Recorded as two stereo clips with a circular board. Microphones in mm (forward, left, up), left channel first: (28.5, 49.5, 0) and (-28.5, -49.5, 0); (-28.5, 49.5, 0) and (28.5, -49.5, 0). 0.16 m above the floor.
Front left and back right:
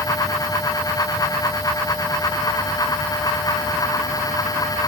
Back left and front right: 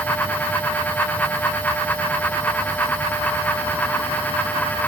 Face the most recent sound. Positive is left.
No sound to turn to.